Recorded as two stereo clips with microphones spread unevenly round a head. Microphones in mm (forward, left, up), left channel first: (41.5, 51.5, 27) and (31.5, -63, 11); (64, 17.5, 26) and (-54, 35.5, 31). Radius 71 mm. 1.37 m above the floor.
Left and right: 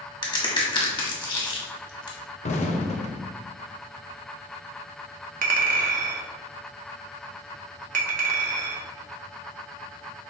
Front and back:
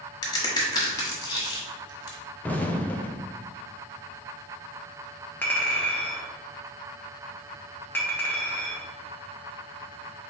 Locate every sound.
0.2 s a crack: 45° left, 1.3 m
2.4 s an explosion: 65° left, 0.7 m
5.4 s a clink: 90° right, 0.7 m